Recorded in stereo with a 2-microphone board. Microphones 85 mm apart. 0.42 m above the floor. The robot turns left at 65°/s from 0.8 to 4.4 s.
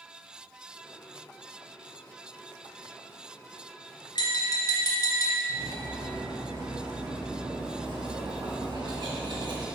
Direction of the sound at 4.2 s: 60° left (ahead or behind).